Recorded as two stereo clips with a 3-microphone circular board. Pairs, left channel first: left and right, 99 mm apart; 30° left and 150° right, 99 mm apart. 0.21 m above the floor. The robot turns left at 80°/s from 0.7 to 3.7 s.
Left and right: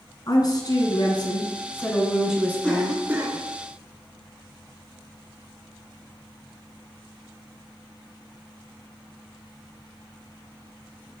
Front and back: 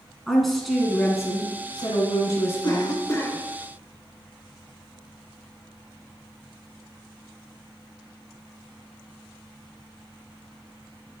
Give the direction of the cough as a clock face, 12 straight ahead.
12 o'clock.